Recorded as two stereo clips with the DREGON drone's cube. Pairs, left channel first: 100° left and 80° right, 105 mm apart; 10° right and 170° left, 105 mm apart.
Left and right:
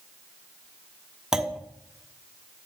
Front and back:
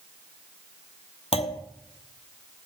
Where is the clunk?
5° left, 0.9 m.